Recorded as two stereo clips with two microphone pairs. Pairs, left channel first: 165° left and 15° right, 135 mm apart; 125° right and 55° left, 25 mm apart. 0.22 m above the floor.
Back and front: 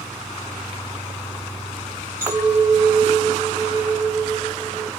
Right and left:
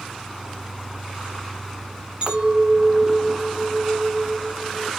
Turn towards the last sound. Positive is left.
turn(degrees=55)